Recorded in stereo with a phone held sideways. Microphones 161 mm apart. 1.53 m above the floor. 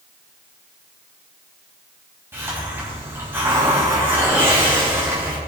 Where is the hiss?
15° right (ahead or behind), 3.5 m.